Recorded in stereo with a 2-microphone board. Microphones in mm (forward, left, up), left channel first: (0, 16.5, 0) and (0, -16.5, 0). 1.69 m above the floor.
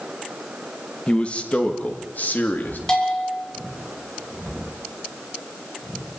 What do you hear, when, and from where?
1.1 s a man speaking: 35° left (ahead or behind), 2.0 m; by 2.8 s 70° left (ahead or behind), 3.5 m
2.9 s a bell: 25° left (ahead or behind), 6 m